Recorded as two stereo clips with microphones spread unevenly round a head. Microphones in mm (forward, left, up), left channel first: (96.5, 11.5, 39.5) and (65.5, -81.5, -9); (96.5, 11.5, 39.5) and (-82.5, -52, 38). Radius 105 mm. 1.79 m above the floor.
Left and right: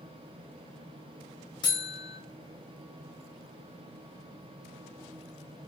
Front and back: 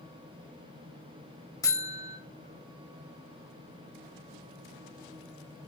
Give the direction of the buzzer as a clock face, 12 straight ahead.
9 o'clock.